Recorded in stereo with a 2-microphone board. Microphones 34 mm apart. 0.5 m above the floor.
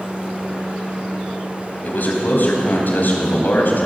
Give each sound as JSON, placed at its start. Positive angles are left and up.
{"t": 1.8, "sound": "a man speaking", "side_deg": 65, "distance_m": 3.5}